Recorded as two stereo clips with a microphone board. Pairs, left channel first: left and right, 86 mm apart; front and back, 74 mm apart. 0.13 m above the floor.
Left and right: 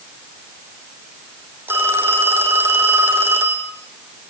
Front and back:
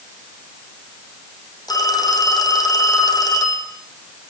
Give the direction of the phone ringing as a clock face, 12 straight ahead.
1 o'clock.